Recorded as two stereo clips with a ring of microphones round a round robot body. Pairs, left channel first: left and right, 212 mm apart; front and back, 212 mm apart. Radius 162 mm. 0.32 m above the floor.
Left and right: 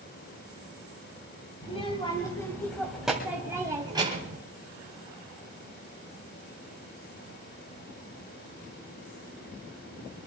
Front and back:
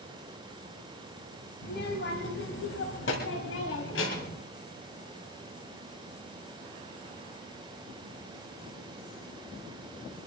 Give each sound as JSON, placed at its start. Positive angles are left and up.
{"t": 1.6, "sound": "a child speaking", "azimuth_deg": 30, "distance_m": 2.0}